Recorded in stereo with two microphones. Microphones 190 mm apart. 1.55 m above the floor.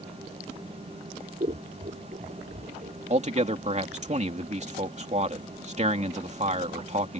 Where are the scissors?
45° right (ahead or behind).